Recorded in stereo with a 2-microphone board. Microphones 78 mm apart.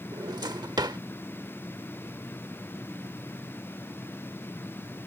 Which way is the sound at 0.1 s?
65° right (ahead or behind).